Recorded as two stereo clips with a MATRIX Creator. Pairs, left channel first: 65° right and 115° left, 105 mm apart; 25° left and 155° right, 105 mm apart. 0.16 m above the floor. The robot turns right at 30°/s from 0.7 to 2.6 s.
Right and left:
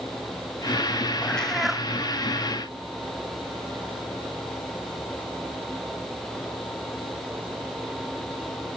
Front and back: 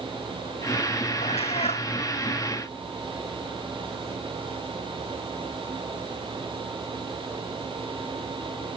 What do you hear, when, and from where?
1.2 s a cat meowing: 10° left; by 1.9 s 30° left